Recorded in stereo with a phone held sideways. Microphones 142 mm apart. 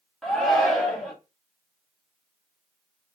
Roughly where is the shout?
Centre.